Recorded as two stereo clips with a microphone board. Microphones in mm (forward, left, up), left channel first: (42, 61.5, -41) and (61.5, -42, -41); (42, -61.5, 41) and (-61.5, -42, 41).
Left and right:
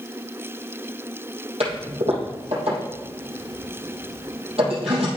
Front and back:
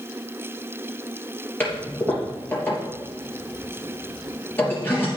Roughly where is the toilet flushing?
Right.